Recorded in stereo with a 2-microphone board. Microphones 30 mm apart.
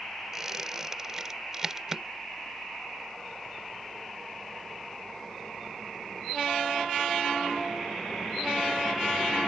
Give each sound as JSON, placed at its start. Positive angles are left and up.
{"t": 0.3, "sound": "a squeak", "side_deg": -15}